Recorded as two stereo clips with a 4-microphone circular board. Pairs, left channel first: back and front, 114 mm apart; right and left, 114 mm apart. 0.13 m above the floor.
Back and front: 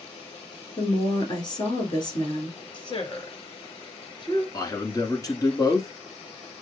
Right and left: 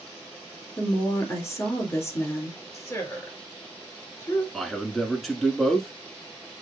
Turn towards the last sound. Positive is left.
turn(degrees=-175)